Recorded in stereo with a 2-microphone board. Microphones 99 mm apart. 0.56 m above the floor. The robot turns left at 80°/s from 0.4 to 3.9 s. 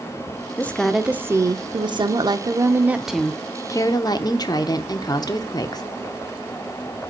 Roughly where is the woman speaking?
Ahead left.